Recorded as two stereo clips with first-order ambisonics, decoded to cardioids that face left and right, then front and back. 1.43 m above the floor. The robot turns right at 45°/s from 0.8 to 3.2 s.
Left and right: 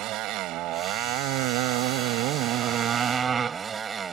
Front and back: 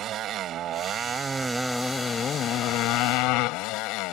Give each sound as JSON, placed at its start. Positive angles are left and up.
{"t": 0.0, "sound": "a motorcycle", "azimuth_deg": -130}